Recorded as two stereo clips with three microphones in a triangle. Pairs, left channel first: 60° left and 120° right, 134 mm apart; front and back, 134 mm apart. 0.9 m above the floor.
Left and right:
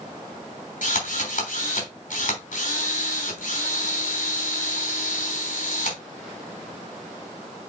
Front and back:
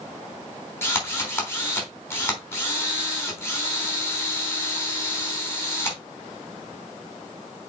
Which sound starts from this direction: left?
A drill, at 0.8 s.